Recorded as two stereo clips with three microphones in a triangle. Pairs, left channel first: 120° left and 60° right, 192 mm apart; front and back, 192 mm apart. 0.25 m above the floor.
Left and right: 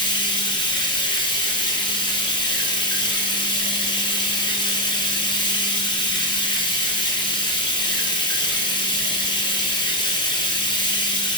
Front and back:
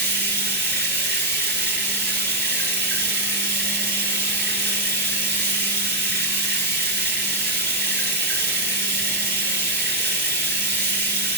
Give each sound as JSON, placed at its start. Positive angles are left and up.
{"t": 0.0, "sound": "running water", "azimuth_deg": -175, "distance_m": 1.1}